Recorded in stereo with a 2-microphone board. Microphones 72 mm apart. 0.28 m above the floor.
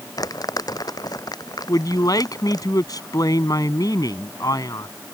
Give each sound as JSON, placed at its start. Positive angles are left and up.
{"t": 0.2, "sound": "crumpling", "side_deg": 60}
{"t": 1.7, "sound": "a man speaking", "side_deg": 60}